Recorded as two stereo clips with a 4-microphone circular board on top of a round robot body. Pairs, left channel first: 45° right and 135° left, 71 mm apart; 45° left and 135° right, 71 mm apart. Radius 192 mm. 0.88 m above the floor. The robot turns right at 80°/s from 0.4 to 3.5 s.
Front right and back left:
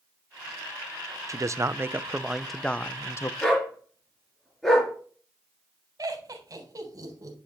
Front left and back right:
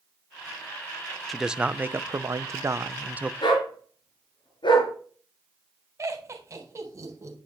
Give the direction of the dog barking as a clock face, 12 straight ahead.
11 o'clock.